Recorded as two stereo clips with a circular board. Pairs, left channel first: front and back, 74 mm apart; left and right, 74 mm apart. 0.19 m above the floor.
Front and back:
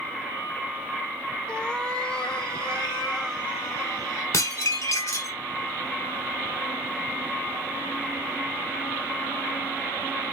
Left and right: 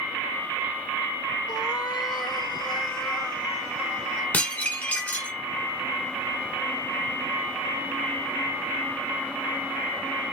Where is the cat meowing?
75° left, 0.5 m.